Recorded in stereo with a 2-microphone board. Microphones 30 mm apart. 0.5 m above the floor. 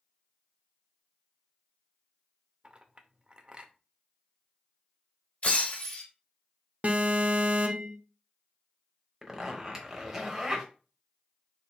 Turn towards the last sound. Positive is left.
turn(degrees=-15)  # may be behind; listen again after turning